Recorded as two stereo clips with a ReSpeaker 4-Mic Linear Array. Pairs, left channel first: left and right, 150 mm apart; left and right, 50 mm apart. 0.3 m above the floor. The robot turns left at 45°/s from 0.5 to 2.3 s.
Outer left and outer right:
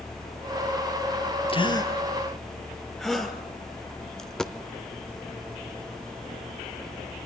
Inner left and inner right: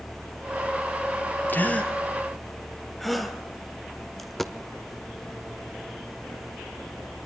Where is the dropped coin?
5° left (ahead or behind), 1.2 m.